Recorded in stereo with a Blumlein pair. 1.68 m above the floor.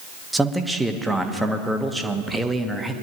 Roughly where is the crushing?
No crushing in this recording.